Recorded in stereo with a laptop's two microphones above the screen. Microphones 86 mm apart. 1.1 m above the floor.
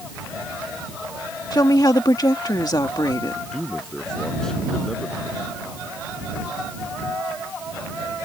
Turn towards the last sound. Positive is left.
turn(degrees=5)  # may be behind; listen again after turning